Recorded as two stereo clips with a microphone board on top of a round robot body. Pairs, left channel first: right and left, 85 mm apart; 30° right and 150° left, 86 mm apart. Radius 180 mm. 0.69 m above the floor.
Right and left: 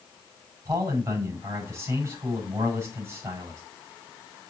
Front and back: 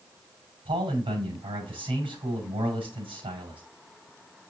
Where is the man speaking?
150° left, 6 m.